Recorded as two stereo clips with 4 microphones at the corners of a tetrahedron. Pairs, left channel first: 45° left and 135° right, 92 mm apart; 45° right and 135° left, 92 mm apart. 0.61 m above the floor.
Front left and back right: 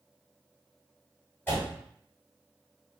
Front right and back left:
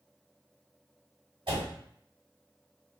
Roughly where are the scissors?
No scissors in this recording.